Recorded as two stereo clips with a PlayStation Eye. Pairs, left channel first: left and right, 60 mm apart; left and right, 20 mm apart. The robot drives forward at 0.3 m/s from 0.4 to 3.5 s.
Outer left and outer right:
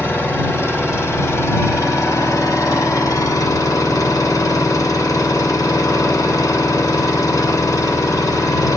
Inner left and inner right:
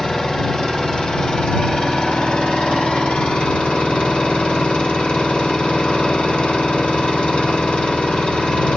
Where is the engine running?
45° left (ahead or behind), 1.3 m; by 8.8 s 65° left (ahead or behind), 1.0 m.